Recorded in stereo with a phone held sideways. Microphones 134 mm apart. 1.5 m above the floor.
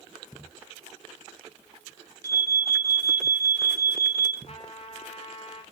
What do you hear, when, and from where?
2.2 s an alarm: 25° right (ahead or behind), 1.9 m
4.5 s a trumpet: 50° left (ahead or behind), 2.5 m